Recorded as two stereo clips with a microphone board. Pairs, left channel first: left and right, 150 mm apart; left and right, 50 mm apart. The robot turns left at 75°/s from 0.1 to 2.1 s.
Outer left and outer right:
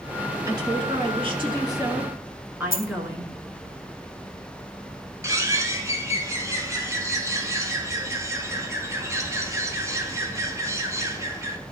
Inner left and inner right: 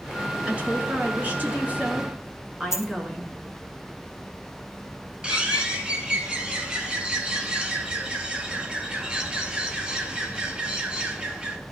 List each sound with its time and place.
0.5 s a woman speaking: 40° right, 1.8 m; by 3.3 s 160° right, 1.8 m
2.7 s a dropped coin: 70° left (ahead or behind), 0.6 m
5.2 s a bird: 20° right (ahead or behind), 1.0 m